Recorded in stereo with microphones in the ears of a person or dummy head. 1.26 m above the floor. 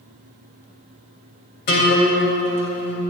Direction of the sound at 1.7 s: 55° left (ahead or behind).